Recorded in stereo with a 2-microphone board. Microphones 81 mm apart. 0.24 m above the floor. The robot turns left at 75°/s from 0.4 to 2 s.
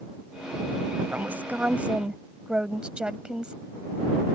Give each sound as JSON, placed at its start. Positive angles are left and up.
{"t": 1.1, "sound": "a woman speaking", "side_deg": -20}